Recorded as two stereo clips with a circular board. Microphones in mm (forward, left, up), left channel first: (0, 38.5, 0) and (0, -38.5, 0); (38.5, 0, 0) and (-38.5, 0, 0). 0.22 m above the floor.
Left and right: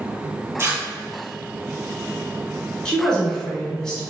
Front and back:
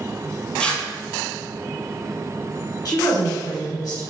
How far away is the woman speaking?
About 1.5 m.